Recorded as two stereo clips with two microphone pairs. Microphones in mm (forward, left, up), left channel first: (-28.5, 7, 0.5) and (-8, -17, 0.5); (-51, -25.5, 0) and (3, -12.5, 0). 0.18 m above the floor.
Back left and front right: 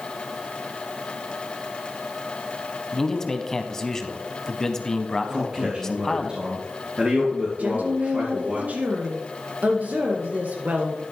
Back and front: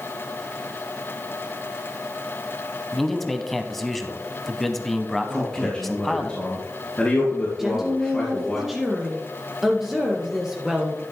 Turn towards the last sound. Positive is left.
turn(degrees=-70)